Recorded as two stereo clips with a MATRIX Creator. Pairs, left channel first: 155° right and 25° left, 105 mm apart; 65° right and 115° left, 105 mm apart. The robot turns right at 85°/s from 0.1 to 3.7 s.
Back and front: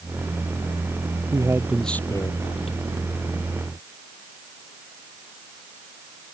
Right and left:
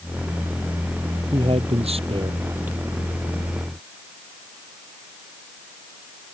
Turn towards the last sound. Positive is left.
turn(degrees=-85)